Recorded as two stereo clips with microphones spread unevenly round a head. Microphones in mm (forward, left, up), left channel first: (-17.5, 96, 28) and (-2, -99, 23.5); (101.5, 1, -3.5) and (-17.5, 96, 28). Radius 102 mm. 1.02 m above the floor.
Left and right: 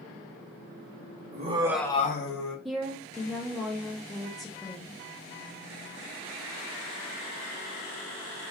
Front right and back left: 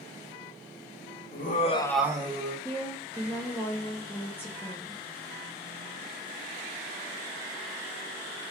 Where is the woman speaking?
5° left, 0.6 m.